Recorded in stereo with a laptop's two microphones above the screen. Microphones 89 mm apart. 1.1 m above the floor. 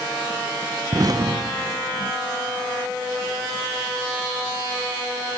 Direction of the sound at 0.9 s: 45° right (ahead or behind).